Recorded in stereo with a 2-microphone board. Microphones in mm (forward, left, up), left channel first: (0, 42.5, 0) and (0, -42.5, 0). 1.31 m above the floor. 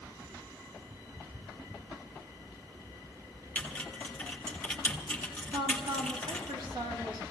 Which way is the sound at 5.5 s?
70° right (ahead or behind).